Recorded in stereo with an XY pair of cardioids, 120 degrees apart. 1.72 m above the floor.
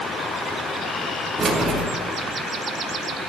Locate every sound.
1.4 s keys jangling: 25° right, 3 m